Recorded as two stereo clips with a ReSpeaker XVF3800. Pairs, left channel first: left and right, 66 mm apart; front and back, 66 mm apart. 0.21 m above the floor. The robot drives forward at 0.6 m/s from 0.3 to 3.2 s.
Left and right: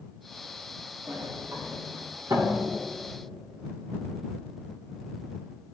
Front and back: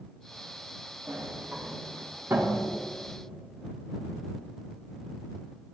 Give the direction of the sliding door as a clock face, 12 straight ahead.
4 o'clock.